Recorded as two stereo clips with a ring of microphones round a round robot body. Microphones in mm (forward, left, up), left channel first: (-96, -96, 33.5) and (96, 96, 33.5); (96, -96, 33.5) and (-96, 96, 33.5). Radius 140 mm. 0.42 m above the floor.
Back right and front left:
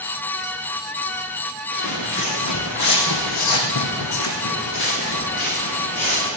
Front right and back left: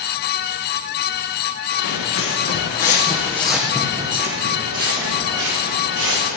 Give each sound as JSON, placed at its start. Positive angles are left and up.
{"t": 1.7, "sound": "footsteps", "azimuth_deg": -80, "distance_m": 3.5}